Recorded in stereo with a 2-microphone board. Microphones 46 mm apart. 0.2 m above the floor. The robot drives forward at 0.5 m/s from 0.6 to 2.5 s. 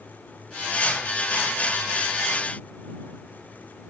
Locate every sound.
Only background noise.